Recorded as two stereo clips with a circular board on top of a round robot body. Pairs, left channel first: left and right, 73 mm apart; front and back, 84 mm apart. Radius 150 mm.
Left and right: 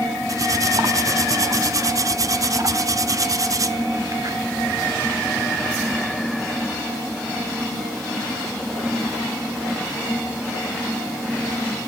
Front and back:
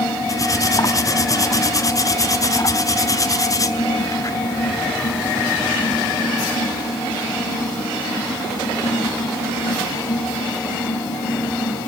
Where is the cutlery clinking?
50° right, 1.3 m.